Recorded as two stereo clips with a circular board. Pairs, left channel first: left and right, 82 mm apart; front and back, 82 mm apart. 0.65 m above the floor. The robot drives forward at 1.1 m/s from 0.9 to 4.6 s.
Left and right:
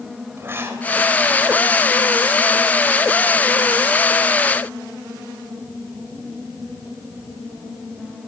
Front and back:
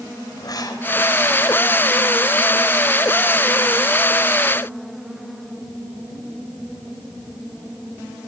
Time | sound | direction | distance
0.4 | writing | 30° right | 3.5 m